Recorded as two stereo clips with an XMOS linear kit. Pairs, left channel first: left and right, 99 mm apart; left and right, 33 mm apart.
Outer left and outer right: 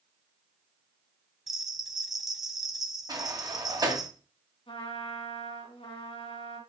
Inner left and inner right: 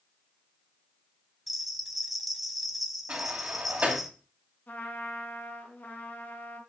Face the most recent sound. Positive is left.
turn(degrees=70)  # may be behind; listen again after turning